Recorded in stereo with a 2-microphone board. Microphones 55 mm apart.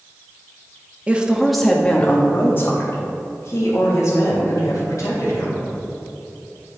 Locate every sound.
1.1 s a woman speaking: 25° right (ahead or behind), 0.7 m; by 5.6 s 70° left (ahead or behind), 2.5 m